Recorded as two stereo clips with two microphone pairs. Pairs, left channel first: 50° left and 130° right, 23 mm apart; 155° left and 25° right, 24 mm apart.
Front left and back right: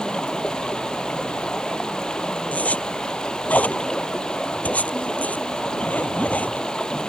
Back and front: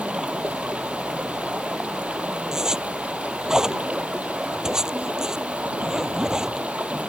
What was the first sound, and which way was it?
Running water, 5° right.